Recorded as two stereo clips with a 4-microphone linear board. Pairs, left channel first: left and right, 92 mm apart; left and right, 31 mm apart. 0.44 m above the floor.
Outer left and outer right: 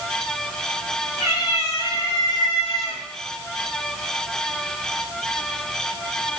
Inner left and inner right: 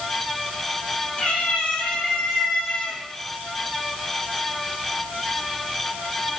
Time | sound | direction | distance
1.2 | a cat meowing | 40° left (ahead or behind) | 3.5 m